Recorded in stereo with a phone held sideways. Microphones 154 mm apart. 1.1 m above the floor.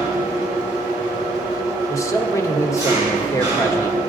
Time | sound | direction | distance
0.0 | an engine running | 25° right (ahead or behind) | 3 m
1.9 | a man speaking | 20° left (ahead or behind) | 1.1 m